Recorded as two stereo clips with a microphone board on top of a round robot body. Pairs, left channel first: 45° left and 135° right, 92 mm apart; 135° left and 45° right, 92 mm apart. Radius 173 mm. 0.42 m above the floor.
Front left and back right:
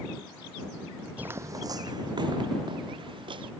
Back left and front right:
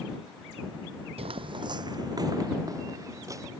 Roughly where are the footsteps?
Ahead right.